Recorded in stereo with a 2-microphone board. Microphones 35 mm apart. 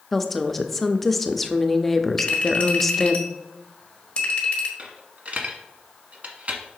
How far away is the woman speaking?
About 0.5 m.